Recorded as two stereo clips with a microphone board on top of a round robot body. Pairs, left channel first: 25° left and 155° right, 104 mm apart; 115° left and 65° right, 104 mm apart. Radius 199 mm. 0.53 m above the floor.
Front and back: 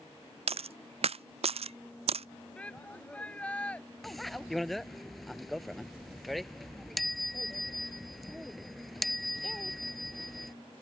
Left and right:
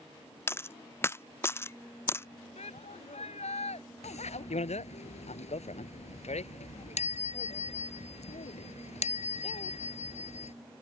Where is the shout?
100° left.